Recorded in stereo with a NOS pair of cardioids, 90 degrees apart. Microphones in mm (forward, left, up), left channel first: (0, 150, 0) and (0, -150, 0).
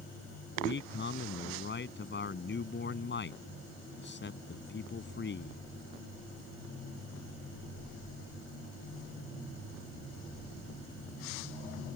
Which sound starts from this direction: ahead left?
A man speaking, at 0.6 s.